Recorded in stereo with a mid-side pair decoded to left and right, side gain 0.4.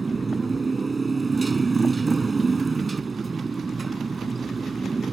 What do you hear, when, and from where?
0.0 s a motorcycle: 30° right